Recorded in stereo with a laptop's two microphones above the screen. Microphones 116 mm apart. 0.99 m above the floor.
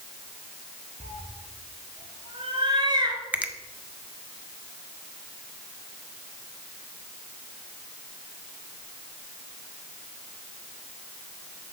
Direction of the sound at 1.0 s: 70° right (ahead or behind).